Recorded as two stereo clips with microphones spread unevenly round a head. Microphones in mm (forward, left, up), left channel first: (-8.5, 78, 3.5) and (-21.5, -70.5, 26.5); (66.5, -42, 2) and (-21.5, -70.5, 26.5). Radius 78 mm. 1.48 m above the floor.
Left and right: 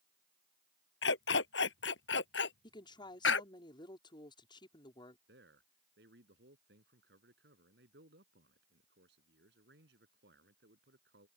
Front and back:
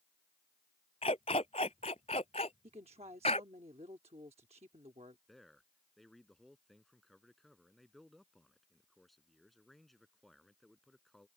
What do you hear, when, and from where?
1.0 s a dog barking: 75° left
2.6 s a woman speaking: 145° left
5.3 s a man speaking: 70° right